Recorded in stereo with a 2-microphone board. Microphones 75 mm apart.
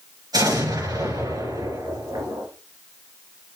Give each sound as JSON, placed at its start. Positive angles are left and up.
{"t": 0.3, "sound": "an explosion", "side_deg": -65, "distance_m": 3.5}